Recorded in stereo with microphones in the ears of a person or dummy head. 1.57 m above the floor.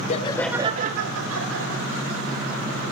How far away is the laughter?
About 1.0 m.